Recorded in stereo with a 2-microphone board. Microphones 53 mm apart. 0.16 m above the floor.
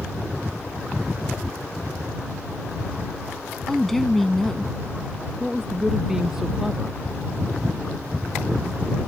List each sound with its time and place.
3.7 s a woman speaking: 5° left (ahead or behind)
5.4 s a woman speaking: 10° right (ahead or behind)